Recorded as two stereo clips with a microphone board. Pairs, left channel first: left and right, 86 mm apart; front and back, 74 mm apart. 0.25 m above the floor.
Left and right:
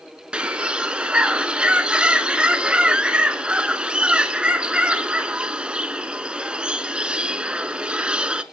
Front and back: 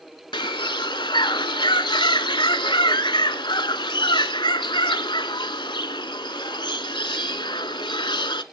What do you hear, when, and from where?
0.3 s a bird: 10° right, 0.7 m